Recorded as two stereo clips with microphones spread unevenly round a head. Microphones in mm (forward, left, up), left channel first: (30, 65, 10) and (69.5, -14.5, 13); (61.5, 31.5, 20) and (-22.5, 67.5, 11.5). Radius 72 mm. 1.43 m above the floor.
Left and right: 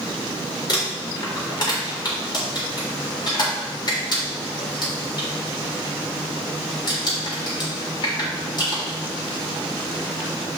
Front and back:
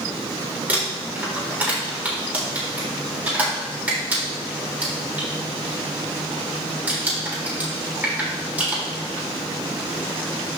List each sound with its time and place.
0.7 s crumpling: 85° left, 3.5 m